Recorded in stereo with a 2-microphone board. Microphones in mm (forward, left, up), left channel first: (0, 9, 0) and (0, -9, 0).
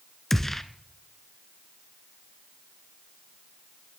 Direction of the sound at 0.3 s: 15° left (ahead or behind).